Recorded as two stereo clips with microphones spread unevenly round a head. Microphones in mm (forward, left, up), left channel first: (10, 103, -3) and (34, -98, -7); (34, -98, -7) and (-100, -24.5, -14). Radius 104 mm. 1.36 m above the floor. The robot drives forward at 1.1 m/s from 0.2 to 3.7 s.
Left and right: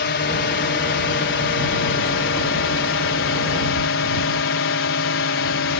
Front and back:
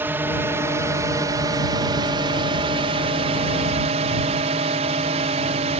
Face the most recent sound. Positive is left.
turn(degrees=100)